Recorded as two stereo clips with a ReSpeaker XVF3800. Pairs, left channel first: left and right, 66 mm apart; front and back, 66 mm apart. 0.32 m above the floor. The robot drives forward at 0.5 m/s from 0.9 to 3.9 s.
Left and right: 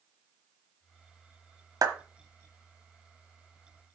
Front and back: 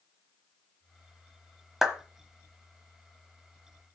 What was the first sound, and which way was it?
A clap, 95° right.